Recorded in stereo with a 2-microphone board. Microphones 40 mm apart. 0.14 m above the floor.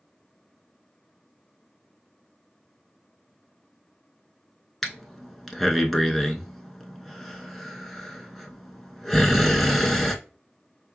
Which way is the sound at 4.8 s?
Centre (ahead or behind).